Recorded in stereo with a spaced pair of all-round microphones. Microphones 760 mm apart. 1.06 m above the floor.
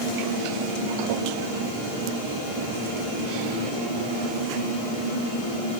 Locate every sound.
Only background noise.